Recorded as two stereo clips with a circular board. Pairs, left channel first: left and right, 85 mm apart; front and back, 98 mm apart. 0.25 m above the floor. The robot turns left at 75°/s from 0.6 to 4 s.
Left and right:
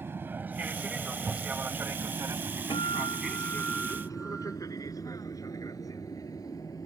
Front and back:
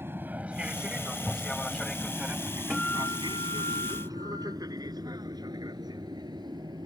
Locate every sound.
0.0 s an aircraft: 130° right; by 6.9 s 135° left
2.7 s a guitar: 90° left; by 4.6 s 10° right